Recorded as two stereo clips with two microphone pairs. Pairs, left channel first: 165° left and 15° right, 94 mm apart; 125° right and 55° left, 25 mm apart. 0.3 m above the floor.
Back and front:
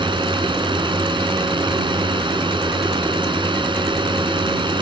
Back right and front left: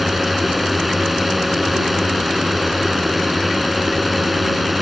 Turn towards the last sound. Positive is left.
turn(degrees=-35)